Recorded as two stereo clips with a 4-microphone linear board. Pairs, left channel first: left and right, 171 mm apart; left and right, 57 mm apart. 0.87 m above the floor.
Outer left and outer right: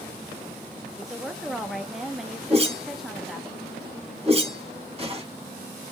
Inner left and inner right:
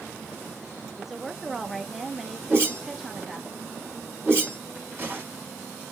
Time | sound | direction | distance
0.9 | a woman speaking | centre (ahead or behind) | 0.8 m
2.5 | a whoosh | 35° right (ahead or behind) | 4.5 m